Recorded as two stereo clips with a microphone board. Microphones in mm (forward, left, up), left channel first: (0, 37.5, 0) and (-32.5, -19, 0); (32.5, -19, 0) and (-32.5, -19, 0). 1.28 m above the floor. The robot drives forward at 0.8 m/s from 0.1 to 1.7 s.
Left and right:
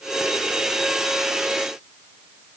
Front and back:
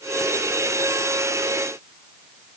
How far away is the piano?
I don't hear a piano.